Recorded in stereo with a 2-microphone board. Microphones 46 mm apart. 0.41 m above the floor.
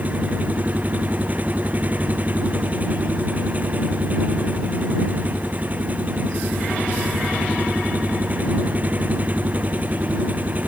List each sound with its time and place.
0.0 s an engine running: 35° right (ahead or behind)